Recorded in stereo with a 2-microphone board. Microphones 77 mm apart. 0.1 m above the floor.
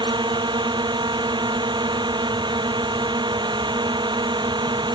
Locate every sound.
0.0 s a drone: 80° right